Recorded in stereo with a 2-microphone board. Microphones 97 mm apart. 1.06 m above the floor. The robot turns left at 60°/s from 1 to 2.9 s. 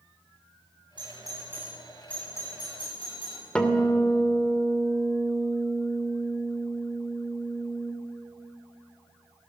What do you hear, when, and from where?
1.0 s a doorbell: 55° right (ahead or behind), 9 m; by 3.5 s 60° left (ahead or behind), 9 m
3.5 s a guitar: 10° left (ahead or behind), 2.5 m